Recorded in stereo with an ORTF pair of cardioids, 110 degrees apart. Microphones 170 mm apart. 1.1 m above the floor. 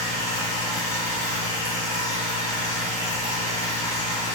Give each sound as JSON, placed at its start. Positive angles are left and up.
{"t": 0.0, "sound": "a machine running", "azimuth_deg": 45, "distance_m": 1.9}